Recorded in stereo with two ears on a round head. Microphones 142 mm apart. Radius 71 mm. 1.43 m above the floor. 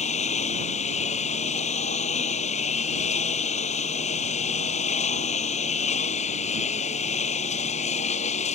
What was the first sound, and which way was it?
A lawn mower, 45° left (ahead or behind).